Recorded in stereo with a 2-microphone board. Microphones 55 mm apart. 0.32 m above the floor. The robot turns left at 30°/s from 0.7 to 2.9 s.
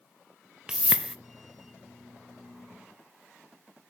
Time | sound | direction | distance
0.7 | a whoosh | 20° right (ahead or behind) | 0.5 m